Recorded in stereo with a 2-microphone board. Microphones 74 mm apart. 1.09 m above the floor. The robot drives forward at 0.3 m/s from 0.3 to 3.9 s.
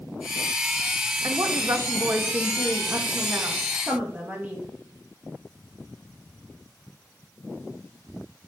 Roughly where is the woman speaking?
Right.